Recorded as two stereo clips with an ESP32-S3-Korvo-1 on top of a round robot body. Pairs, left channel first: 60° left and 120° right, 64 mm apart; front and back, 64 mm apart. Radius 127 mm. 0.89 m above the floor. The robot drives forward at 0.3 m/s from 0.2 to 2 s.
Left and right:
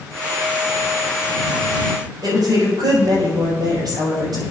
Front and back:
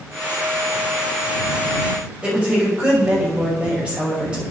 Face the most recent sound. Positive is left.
turn(degrees=-105)